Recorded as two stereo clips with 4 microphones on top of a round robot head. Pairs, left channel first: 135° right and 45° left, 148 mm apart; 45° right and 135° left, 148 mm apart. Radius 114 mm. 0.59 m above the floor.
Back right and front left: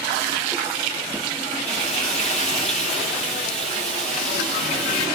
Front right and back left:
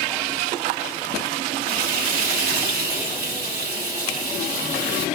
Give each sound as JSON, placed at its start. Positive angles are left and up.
{"t": 1.7, "sound": "frying", "azimuth_deg": 140, "distance_m": 4.5}